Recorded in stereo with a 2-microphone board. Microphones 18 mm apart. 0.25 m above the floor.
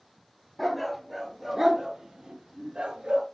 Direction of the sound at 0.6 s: 5° left (ahead or behind).